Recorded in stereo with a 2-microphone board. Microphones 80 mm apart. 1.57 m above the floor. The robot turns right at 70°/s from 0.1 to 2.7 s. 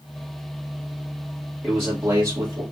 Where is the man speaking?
165° right, 2 m; by 2.6 s 95° right, 2 m.